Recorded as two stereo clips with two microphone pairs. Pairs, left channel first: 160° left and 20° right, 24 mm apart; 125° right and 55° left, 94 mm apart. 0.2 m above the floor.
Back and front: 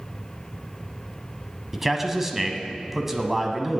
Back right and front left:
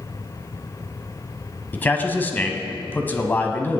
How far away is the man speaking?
About 1.1 m.